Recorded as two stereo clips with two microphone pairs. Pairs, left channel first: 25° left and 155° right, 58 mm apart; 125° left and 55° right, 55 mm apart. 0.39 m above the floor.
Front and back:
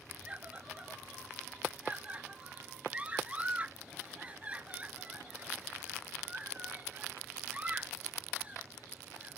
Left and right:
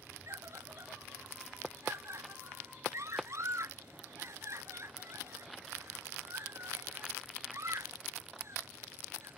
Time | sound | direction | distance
0.3 | a scream | 90° right | ?